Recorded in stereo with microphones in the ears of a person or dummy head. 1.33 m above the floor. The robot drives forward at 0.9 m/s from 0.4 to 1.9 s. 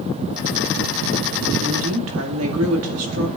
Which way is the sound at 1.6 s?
75° right (ahead or behind).